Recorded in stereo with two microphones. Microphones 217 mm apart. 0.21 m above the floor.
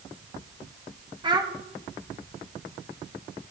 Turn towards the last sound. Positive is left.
turn(degrees=-20)  # may be behind; listen again after turning